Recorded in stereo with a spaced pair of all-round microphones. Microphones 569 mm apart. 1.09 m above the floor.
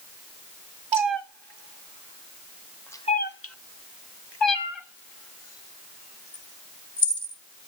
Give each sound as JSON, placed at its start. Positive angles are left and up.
{"t": 0.9, "sound": "a cat meowing", "side_deg": -55, "distance_m": 1.2}